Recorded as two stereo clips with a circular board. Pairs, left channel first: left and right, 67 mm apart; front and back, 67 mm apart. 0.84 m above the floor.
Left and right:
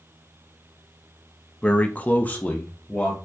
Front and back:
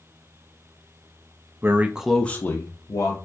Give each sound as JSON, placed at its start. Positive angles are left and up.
{"t": 1.6, "sound": "a man speaking", "azimuth_deg": 155, "distance_m": 0.6}